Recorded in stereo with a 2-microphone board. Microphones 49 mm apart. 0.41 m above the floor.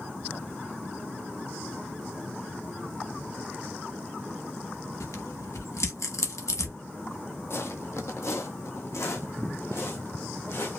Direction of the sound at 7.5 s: 55° left (ahead or behind).